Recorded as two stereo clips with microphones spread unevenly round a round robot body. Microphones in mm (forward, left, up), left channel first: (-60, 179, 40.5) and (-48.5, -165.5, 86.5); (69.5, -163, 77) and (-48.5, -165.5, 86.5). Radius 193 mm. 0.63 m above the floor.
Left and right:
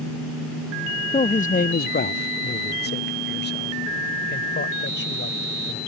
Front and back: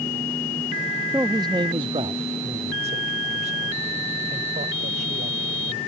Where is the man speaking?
130° left; by 5.8 s 150° left.